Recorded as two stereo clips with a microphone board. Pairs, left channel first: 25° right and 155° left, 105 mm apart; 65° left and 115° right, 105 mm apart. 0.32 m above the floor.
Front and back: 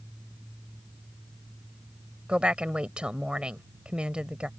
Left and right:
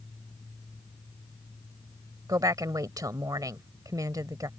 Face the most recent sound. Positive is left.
turn(degrees=-130)